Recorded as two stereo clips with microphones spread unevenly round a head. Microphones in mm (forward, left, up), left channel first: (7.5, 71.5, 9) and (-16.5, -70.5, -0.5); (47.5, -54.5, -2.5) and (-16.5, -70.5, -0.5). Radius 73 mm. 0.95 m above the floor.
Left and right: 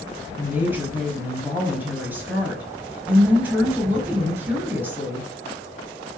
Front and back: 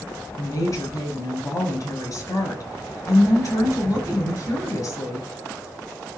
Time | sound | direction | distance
0.4 | a woman speaking | 25° right | 5 m